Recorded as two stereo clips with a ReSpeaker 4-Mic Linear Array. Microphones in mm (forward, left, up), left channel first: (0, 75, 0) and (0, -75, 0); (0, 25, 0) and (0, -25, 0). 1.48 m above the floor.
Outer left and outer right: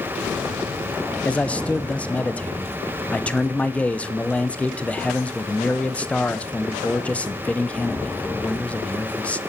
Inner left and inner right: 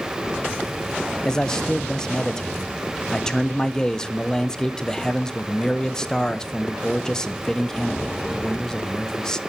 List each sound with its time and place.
1.2 s a man speaking: 10° left (ahead or behind), 0.6 m